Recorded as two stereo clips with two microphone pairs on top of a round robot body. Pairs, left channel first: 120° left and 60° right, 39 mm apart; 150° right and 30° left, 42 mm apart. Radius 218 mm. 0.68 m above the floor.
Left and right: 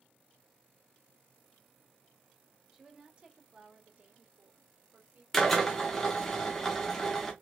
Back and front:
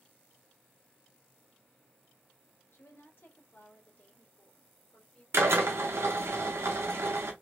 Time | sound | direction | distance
2.7 | a woman speaking | 130° right | 2.5 m
5.3 | a drill | 35° left | 1.0 m